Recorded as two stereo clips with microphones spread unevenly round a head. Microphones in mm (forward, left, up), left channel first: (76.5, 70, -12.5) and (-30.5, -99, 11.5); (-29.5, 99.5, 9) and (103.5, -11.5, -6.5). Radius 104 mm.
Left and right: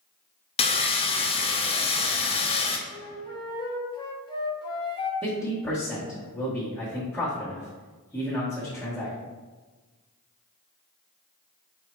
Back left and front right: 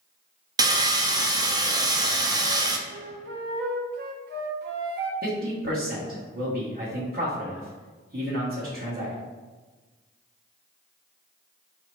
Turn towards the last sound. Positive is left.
turn(degrees=-25)